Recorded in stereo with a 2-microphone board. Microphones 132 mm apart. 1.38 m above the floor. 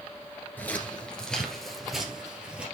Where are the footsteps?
15° left (ahead or behind), 1.6 m; by 2.6 s 10° right (ahead or behind), 2 m.